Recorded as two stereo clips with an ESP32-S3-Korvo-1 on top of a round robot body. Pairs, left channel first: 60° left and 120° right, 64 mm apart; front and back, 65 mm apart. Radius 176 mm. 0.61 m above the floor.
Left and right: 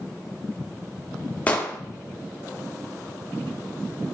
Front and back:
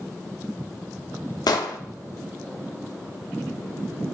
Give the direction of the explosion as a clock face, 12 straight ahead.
12 o'clock.